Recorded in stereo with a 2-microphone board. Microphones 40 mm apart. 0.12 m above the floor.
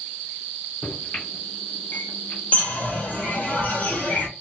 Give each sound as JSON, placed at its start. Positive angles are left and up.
{"t": 0.8, "sound": "a microwave", "side_deg": 50, "distance_m": 1.8}
{"t": 2.5, "sound": "a bird", "side_deg": 40, "distance_m": 0.8}